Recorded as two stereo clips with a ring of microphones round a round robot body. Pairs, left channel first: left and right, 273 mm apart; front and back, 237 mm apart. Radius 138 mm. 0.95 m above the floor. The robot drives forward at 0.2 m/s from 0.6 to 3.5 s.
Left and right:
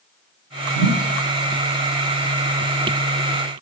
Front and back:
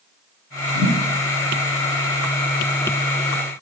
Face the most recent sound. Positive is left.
turn(degrees=-75)